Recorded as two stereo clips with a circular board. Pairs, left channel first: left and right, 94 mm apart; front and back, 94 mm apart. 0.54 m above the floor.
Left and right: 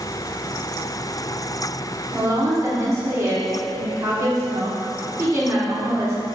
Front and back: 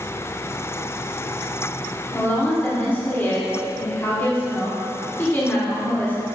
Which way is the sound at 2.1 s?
60° right.